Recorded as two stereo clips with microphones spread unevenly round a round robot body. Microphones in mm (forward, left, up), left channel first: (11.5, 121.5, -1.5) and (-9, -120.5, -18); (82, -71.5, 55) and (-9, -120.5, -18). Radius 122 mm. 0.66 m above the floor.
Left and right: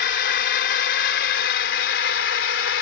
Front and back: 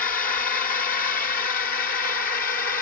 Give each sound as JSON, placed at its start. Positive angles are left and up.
{"t": 0.0, "sound": "a drone", "azimuth_deg": 45}